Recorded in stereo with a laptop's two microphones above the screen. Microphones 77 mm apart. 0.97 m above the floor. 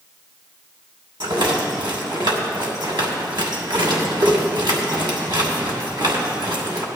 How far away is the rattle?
About 2.5 m.